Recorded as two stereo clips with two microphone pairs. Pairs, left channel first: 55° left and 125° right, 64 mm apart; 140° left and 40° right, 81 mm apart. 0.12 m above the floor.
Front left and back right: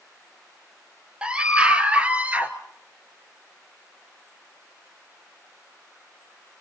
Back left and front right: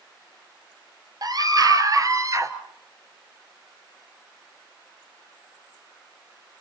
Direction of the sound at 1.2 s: 55° right.